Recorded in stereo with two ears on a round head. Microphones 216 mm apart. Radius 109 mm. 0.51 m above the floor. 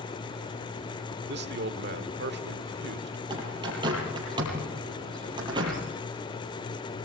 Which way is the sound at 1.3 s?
50° right (ahead or behind).